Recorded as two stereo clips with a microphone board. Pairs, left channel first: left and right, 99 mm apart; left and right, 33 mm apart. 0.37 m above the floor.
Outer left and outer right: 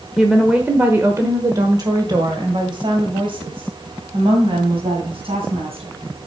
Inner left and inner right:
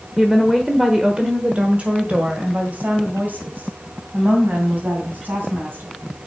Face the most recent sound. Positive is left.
turn(degrees=-70)  # may be behind; listen again after turning